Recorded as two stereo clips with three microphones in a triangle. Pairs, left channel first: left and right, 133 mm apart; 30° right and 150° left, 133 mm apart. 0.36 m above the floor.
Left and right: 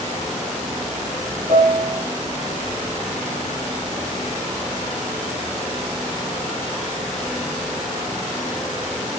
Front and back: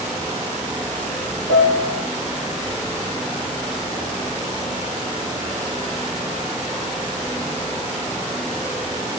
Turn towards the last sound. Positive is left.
turn(degrees=-30)